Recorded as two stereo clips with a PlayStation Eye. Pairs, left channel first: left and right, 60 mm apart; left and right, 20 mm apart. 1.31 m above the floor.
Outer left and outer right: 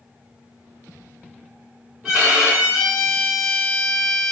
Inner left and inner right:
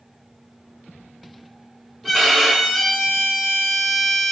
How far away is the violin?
About 2.0 m.